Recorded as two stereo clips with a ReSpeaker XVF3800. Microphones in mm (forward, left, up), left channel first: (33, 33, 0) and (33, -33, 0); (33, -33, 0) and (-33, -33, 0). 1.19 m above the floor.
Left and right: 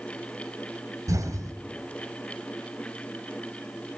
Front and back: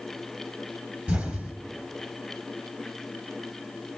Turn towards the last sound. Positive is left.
turn(degrees=-120)